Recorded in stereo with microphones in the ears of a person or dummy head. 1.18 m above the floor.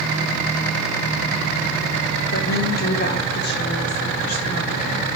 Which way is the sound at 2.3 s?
45° left (ahead or behind).